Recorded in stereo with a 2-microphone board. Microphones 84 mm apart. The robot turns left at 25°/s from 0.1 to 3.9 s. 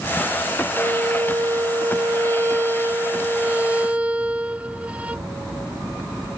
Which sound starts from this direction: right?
A violin, at 0.7 s.